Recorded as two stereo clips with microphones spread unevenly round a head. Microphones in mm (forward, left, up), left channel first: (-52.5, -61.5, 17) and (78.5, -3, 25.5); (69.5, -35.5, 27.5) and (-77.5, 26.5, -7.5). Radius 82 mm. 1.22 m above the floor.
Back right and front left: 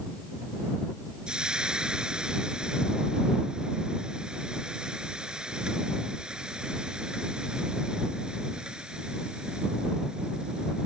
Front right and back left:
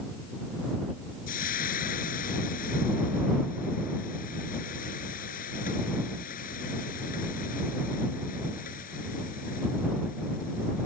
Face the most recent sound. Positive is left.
turn(degrees=-60)